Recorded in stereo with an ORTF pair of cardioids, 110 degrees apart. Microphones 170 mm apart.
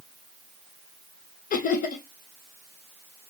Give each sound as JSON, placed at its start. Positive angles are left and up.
{"t": 1.5, "sound": "laughter", "azimuth_deg": 50, "distance_m": 1.0}